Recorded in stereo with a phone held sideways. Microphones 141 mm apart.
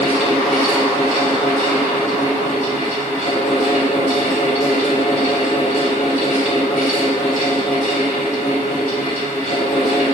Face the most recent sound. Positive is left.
turn(degrees=60)  # may be behind; listen again after turning